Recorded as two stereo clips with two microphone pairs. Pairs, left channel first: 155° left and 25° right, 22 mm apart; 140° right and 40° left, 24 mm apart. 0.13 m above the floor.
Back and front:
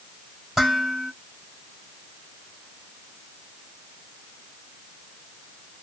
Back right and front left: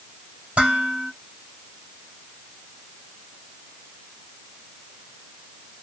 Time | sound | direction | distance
0.6 | dishes clattering | 55° left | 2.5 m